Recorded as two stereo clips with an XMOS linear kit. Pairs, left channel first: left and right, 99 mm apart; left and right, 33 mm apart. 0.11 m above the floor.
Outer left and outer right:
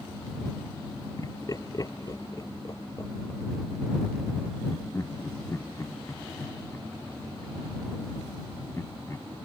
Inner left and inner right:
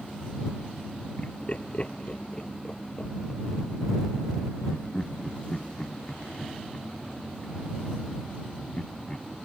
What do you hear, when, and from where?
1.2 s laughter: 40° left (ahead or behind); by 9.5 s 25° left (ahead or behind)